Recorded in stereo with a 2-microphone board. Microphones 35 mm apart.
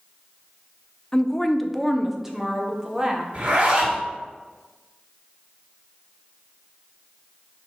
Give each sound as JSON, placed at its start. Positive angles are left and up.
{"t": 1.1, "sound": "a woman speaking", "side_deg": 20, "distance_m": 0.6}
{"t": 3.3, "sound": "a zipper", "side_deg": -50, "distance_m": 2.5}